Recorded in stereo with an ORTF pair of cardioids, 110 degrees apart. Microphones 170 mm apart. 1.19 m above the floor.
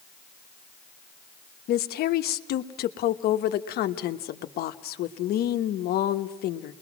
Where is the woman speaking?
65° left, 1.2 m.